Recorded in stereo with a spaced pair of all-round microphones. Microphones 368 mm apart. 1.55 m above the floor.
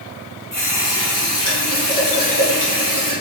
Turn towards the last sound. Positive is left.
turn(degrees=55)  # may be behind; listen again after turning